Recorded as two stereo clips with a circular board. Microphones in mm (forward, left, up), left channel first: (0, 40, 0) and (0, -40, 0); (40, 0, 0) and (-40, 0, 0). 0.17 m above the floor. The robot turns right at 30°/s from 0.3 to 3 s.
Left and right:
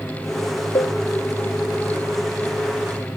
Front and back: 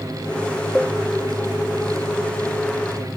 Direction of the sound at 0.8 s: 90° left.